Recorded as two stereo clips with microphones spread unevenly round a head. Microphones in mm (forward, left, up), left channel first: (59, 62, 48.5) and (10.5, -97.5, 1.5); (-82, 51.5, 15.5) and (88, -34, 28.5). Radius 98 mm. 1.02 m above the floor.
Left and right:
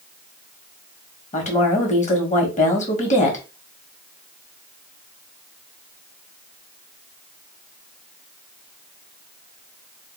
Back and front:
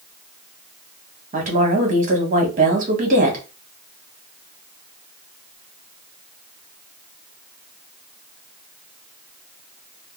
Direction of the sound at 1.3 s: 20° left.